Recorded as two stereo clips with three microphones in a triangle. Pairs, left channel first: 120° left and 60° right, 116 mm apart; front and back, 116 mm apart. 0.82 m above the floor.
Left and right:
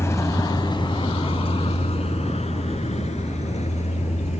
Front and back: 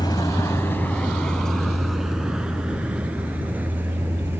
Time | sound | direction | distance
0.0 | a vehicle | 55° left | ?